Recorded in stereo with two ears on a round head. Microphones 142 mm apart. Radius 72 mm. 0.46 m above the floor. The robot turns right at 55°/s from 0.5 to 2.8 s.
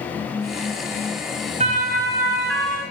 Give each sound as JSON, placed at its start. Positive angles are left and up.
{"t": 1.6, "sound": "a siren", "side_deg": -40, "distance_m": 3.0}